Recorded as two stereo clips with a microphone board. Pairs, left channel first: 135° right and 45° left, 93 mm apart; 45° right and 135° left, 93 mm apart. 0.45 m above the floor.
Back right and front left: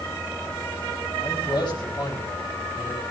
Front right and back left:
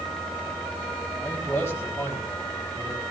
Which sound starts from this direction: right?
A man speaking, at 1.2 s.